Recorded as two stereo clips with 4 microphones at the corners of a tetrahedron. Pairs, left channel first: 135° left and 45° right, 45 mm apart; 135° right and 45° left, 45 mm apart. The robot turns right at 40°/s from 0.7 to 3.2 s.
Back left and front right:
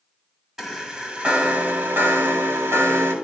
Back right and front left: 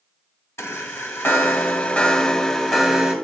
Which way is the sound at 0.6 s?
120° right.